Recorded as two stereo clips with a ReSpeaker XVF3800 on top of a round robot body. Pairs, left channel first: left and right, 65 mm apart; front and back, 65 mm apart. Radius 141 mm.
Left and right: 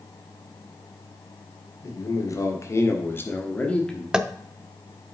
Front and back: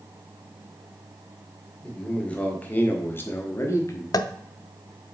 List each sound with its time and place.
1.8 s a man speaking: 75° left, 1.8 m; by 4.0 s 10° left, 1.2 m
4.1 s tapping: 10° right, 0.6 m